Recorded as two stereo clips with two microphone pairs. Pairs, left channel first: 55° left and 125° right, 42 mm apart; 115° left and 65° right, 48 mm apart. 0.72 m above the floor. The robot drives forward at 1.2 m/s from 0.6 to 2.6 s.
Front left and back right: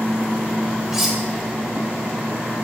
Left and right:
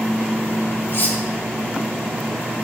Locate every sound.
0.9 s cutlery clinking: 155° left, 1.1 m; by 1.2 s 160° left, 1.4 m